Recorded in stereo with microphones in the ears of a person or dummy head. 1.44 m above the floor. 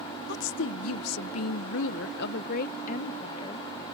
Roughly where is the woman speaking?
Left.